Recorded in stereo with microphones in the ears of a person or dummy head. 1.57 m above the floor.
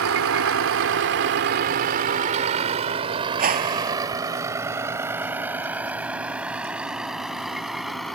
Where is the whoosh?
40° right (ahead or behind).